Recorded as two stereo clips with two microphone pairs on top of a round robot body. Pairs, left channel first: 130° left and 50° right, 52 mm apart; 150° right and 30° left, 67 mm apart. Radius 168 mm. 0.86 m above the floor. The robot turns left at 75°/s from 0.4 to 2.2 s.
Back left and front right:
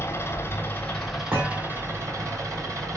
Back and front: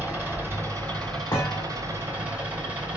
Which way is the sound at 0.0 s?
95° left.